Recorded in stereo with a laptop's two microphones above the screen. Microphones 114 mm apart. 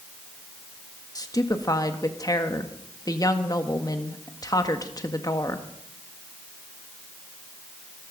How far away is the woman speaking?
About 1.5 m.